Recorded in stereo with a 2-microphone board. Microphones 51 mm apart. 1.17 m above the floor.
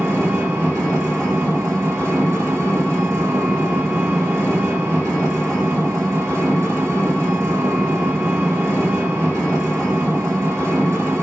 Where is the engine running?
65° right (ahead or behind), 0.9 m.